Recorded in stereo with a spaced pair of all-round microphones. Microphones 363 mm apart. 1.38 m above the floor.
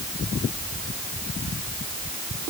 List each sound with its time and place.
Only background noise.